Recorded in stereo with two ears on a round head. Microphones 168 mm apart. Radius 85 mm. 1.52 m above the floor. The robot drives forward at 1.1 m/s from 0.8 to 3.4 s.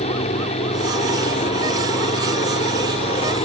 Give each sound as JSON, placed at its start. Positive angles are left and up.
{"t": 0.0, "sound": "a helicopter", "side_deg": 35}